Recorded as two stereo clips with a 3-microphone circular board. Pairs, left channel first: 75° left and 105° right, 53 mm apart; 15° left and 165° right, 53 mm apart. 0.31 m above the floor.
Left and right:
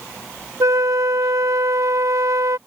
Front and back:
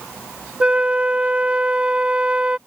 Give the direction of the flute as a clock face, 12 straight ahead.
3 o'clock.